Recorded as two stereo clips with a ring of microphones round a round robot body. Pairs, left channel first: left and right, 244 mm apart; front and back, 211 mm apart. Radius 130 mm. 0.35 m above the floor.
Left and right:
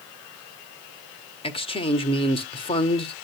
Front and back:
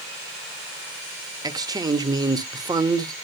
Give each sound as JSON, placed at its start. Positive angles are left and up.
{"t": 1.4, "sound": "a man speaking", "azimuth_deg": 130, "distance_m": 1.0}